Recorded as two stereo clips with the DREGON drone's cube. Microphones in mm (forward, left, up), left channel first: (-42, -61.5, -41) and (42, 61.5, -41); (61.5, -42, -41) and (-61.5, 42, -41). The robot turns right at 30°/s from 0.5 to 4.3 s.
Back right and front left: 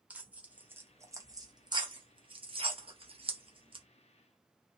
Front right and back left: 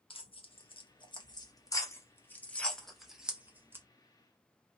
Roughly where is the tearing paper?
Ahead.